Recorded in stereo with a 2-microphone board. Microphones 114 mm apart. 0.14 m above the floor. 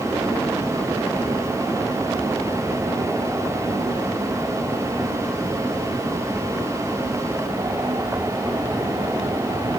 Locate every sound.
Only background noise.